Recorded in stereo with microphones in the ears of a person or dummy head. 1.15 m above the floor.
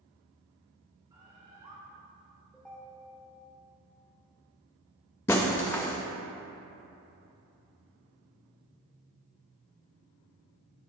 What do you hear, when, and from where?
1.1 s a bird: 20° right (ahead or behind), 2 m
2.5 s a ringtone: 5° left (ahead or behind), 1.9 m
5.3 s breaking glass: 10° left (ahead or behind), 0.7 m